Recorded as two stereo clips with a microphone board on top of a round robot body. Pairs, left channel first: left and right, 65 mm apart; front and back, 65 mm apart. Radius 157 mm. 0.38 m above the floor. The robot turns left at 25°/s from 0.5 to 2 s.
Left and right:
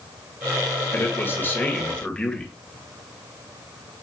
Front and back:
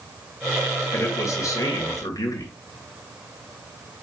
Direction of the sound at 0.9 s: 45° left.